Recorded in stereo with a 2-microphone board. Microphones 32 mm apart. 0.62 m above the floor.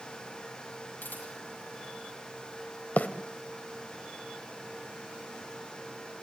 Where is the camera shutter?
85° left, 10 m.